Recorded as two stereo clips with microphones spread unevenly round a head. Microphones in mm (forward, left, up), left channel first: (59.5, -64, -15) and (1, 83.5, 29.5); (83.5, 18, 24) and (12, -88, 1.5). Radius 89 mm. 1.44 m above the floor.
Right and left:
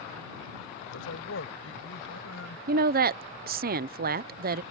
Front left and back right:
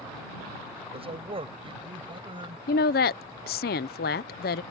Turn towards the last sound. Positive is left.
turn(degrees=75)